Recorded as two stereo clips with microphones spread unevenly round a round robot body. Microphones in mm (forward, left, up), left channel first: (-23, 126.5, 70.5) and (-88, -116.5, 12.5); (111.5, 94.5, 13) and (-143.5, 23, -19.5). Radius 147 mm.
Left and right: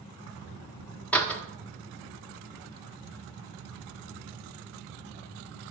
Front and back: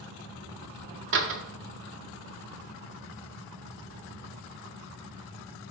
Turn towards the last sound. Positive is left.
turn(degrees=165)